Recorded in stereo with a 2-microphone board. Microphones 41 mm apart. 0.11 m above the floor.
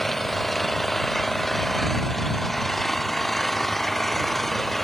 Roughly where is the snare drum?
I don't hear a snare drum.